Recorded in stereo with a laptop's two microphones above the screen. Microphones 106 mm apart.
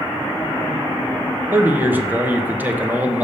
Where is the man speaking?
20° right (ahead or behind), 0.9 m.